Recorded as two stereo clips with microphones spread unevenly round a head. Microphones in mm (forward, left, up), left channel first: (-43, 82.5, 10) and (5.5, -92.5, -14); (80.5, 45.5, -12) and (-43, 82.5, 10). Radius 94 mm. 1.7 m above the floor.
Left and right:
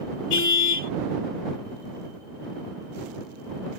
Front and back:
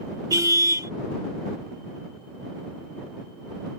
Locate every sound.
0.3 s a car horn: 105° left